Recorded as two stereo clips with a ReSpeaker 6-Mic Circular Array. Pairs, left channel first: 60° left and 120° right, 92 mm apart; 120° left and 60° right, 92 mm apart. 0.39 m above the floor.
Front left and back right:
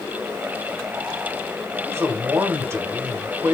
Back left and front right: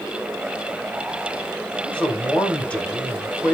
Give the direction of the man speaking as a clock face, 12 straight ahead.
6 o'clock.